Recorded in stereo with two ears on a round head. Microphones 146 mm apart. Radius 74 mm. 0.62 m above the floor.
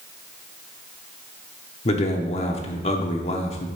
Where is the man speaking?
40° left (ahead or behind), 1.0 m.